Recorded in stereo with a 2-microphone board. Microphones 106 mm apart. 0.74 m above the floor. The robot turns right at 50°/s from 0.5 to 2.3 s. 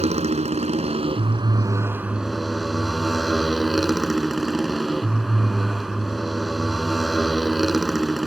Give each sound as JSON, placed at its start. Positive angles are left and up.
{"t": 0.0, "sound": "a motorcycle", "azimuth_deg": -90}